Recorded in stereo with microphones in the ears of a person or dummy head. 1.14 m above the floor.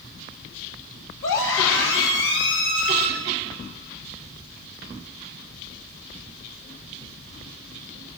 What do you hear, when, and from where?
1.2 s a scream: 80° left, 7.5 m; by 3.1 s 75° left (ahead or behind), 6.5 m